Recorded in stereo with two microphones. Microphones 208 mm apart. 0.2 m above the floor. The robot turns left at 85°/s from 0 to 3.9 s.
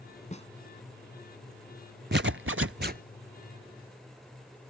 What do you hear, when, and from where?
0.3 s a snare drum: 35° left (ahead or behind); by 0.5 s 25° left (ahead or behind)
2.1 s a zipper: 60° right; by 3.0 s 135° right